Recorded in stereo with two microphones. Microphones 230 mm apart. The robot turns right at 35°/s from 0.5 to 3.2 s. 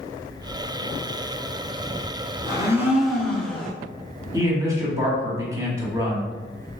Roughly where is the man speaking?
Centre.